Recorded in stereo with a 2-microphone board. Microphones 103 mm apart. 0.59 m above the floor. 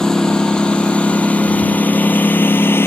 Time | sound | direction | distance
0.0 | a lawn mower | 5° left (ahead or behind) | ?